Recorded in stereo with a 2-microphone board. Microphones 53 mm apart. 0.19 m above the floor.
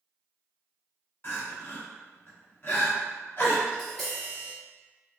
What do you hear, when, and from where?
1.2 s crying: 45° left (ahead or behind), 1.3 m
3.7 s tapping: 5° left (ahead or behind), 1.8 m